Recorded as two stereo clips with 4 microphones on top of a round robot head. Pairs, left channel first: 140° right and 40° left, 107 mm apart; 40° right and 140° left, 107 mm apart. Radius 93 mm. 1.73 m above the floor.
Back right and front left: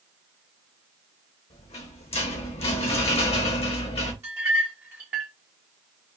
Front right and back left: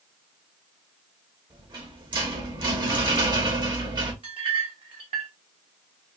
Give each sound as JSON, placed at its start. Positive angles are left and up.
{"t": 1.5, "sound": "a rattle", "azimuth_deg": -170, "distance_m": 0.8}
{"t": 4.2, "sound": "a clink", "azimuth_deg": 105, "distance_m": 0.8}